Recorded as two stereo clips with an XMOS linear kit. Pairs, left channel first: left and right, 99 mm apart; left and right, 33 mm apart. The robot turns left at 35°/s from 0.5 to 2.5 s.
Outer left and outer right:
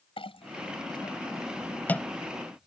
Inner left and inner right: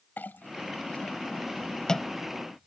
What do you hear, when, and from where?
0.2 s a clink: 65° left (ahead or behind); by 2.7 s 5° right (ahead or behind)